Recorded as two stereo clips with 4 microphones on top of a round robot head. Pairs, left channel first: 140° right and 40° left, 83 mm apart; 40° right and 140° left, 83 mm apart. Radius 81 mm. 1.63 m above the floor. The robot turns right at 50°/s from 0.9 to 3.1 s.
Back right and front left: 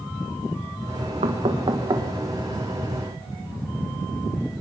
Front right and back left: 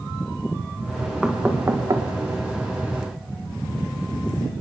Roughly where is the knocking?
Ahead left.